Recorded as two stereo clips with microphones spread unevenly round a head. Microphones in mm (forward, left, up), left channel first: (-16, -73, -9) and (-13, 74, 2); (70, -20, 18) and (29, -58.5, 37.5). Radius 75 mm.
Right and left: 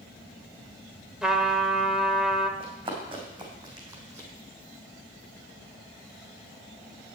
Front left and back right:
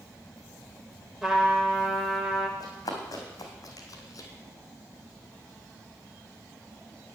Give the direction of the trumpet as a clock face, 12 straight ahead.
6 o'clock.